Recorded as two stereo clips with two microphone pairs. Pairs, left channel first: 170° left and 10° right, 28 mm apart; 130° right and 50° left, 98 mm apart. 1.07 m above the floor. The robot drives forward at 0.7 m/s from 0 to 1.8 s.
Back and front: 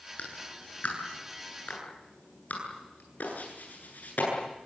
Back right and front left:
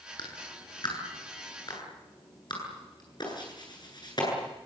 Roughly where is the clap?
Behind.